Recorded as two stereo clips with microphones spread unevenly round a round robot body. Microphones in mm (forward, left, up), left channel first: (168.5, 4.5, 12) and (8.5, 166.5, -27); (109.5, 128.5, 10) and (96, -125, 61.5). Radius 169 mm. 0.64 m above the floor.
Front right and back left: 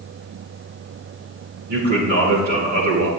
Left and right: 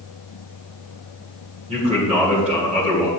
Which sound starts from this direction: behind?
A man speaking, at 1.7 s.